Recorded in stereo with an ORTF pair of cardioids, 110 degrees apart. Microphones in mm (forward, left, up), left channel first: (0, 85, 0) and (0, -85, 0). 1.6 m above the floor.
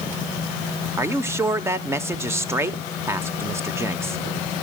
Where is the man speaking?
15° right, 1.2 m.